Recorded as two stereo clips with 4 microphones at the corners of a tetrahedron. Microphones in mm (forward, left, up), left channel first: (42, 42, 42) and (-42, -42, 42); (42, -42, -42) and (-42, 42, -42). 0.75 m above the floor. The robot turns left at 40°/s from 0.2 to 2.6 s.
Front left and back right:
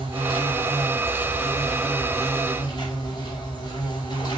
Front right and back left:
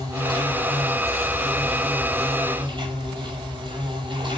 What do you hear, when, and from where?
0.0 s an insect: 170° right, 6 m; by 4.4 s 95° left, 6 m